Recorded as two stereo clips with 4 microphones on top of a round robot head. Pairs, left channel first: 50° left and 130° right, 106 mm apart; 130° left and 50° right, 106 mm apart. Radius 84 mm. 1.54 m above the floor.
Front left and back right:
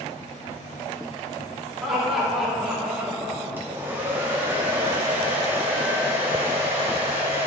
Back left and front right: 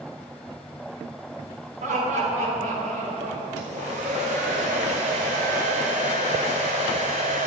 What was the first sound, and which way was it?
Laughter, 45° right.